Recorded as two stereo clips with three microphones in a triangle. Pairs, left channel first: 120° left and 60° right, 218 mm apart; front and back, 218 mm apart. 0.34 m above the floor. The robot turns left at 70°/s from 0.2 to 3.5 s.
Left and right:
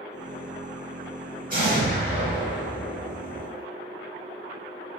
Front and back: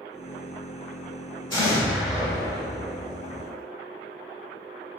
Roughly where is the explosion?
Ahead right.